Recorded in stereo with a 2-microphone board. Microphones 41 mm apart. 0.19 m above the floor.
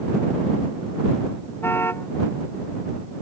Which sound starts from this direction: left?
A car horn, at 1.6 s.